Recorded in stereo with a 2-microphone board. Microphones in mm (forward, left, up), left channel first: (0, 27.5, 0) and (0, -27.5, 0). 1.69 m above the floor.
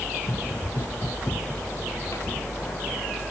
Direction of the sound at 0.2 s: 70° left (ahead or behind).